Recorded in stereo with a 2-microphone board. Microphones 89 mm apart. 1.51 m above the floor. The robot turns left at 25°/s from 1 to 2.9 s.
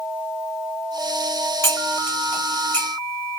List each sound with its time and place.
1.6 s cutlery clinking: 30° left (ahead or behind), 0.9 m; by 2.9 s 15° left (ahead or behind), 0.9 m